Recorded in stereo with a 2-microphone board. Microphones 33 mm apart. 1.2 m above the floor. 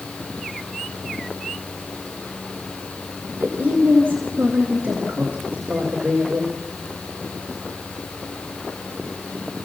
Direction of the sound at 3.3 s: 75° right (ahead or behind).